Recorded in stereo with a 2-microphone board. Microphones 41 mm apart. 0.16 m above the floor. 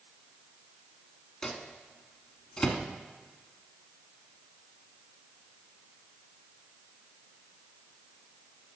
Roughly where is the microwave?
Centre.